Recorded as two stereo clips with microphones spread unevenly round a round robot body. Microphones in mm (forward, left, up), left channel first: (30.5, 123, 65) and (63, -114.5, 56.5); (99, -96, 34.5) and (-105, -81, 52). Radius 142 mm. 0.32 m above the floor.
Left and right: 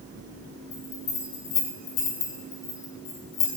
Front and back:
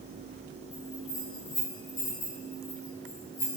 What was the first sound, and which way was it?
A bell, 50° left.